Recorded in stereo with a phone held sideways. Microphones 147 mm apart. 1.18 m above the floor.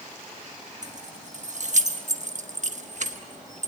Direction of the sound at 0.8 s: 60° right (ahead or behind).